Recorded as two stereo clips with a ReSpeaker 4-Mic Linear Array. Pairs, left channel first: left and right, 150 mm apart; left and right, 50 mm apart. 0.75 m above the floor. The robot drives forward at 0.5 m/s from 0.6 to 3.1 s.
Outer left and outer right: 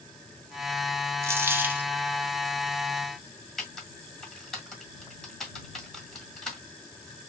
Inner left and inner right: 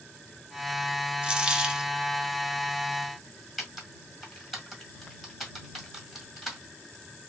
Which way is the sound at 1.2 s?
15° right (ahead or behind).